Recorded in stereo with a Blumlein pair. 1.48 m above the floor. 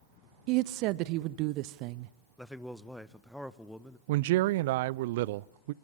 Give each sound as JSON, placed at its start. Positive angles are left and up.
{"t": 0.5, "sound": "a woman speaking", "azimuth_deg": -40, "distance_m": 0.7}
{"t": 2.4, "sound": "a man speaking", "azimuth_deg": 0, "distance_m": 1.1}
{"t": 4.1, "sound": "a man speaking", "azimuth_deg": -50, "distance_m": 0.5}